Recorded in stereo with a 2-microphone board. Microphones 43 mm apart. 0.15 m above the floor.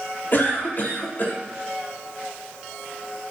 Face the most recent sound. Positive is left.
turn(degrees=50)  # may be behind; listen again after turning